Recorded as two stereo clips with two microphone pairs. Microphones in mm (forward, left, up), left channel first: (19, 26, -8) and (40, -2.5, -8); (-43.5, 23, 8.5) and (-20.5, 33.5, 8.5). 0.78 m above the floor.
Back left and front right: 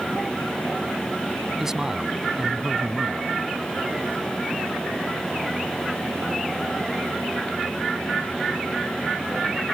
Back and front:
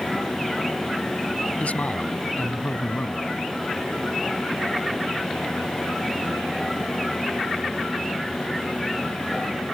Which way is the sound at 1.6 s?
130° right.